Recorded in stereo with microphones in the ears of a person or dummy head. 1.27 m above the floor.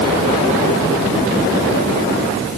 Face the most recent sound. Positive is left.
No sound to turn to.